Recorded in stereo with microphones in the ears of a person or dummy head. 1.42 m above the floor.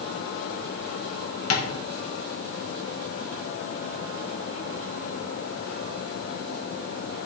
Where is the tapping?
80° left, 1.8 m.